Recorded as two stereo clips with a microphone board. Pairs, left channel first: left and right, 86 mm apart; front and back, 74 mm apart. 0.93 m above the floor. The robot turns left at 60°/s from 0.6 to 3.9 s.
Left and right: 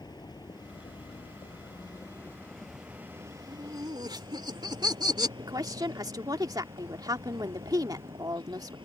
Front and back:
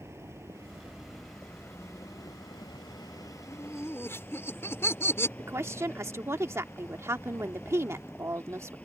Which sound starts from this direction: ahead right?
Laughter, at 3.5 s.